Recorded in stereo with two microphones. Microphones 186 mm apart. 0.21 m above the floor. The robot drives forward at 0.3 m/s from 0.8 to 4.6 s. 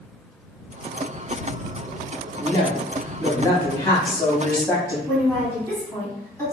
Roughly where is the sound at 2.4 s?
Centre.